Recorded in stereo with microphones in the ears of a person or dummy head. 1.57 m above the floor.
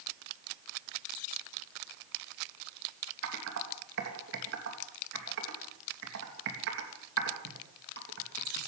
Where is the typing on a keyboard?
70° right (ahead or behind), 3 m.